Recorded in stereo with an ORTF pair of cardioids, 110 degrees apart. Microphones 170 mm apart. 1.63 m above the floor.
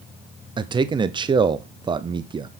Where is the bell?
I don't hear a bell.